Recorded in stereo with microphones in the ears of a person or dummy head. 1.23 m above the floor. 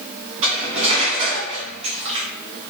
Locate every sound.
0.4 s cutlery clinking: 35° right (ahead or behind), 0.7 m